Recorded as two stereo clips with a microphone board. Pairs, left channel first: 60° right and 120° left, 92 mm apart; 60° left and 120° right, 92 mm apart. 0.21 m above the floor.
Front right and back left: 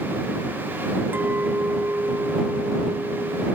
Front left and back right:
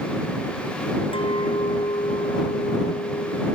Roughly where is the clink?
Ahead left.